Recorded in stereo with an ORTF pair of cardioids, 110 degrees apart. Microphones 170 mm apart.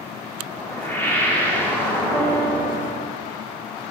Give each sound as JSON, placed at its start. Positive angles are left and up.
{"t": 0.5, "sound": "a whoosh", "azimuth_deg": 10, "distance_m": 2.5}
{"t": 2.1, "sound": "a piano", "azimuth_deg": 20, "distance_m": 4.0}